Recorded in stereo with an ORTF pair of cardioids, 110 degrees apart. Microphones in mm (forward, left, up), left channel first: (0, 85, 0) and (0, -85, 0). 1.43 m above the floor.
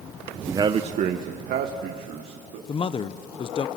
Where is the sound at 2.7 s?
35° left, 0.9 m.